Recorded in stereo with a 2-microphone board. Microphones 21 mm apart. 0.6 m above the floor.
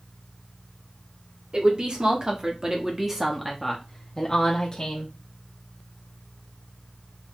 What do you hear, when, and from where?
1.5 s a woman speaking: 45° right (ahead or behind), 1.4 m; by 5.1 s 40° left (ahead or behind), 1.2 m